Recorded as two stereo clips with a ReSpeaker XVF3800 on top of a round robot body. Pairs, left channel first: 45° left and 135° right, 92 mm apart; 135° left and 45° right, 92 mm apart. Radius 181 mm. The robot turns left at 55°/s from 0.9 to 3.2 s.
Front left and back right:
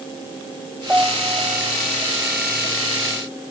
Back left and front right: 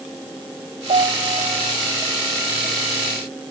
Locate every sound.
0.9 s a piano: 55° right; by 1.8 s 105° right